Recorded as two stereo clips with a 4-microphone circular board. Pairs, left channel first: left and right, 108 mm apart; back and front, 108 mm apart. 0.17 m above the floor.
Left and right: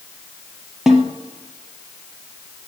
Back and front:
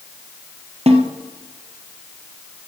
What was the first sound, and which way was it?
A snare drum, 5° right.